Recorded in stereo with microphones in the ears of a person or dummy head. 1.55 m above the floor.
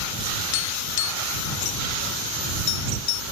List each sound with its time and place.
0.5 s tapping: 55° left (ahead or behind)